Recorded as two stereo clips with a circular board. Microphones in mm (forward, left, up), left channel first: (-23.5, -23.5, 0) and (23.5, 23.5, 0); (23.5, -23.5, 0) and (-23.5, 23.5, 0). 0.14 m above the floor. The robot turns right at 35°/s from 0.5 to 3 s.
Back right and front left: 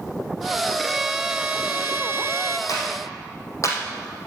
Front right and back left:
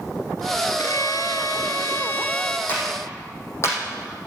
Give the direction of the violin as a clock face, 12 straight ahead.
1 o'clock.